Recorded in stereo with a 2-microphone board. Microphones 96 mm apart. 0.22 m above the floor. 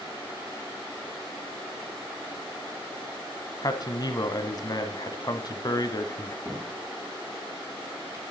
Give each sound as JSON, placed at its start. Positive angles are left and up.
{"t": 3.6, "sound": "a man speaking", "side_deg": 45, "distance_m": 1.3}
{"t": 6.5, "sound": "a cupboard door", "side_deg": -30, "distance_m": 2.5}